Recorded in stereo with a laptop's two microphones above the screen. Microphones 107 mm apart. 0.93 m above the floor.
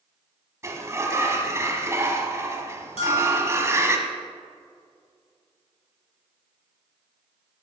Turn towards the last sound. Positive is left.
turn(degrees=65)  # may be behind; listen again after turning